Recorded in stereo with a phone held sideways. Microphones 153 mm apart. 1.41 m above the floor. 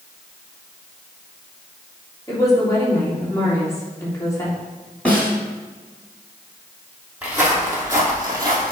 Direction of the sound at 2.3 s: 20° left (ahead or behind).